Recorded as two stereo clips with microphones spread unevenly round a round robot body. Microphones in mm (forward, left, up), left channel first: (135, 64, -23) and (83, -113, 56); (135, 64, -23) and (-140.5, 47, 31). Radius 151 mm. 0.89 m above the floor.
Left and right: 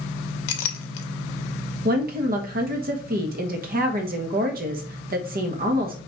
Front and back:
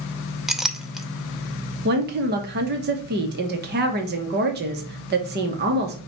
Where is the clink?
95° left, 0.6 m.